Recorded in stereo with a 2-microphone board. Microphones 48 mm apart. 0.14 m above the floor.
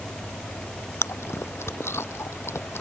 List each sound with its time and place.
1.0 s chewing: 60° left (ahead or behind)